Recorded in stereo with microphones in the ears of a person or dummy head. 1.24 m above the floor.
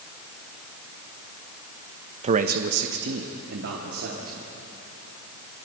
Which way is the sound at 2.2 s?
40° right (ahead or behind).